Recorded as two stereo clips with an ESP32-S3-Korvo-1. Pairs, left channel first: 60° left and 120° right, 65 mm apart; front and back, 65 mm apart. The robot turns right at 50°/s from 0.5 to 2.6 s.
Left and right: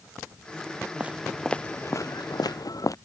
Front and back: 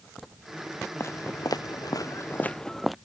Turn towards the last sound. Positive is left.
turn(degrees=95)